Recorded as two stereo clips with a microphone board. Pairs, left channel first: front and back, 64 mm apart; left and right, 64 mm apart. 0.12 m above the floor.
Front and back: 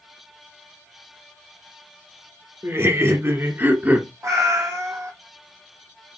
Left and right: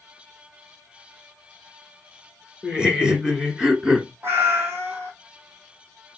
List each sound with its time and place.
2.6 s laughter: 160° right, 1.8 m; by 4.1 s 155° right, 1.3 m
4.2 s a cat meowing: 145° right, 1.0 m